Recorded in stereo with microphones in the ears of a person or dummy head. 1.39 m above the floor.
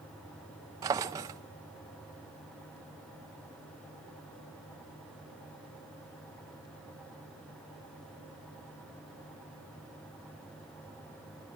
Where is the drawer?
20° right (ahead or behind), 0.5 m.